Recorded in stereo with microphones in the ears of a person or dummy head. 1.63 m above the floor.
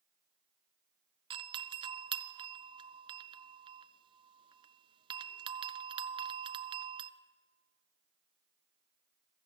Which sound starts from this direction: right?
A doorbell, at 1.3 s.